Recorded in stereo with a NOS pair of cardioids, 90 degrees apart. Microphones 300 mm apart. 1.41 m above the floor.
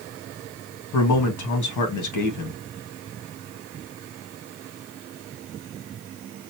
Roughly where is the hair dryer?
No hair dryer in this recording.